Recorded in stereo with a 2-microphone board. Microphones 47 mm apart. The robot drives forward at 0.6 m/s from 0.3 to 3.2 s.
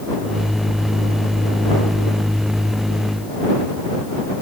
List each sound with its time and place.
Only background noise.